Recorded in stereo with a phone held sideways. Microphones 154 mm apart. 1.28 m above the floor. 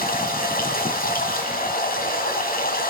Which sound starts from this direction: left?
Running water, at 0.0 s.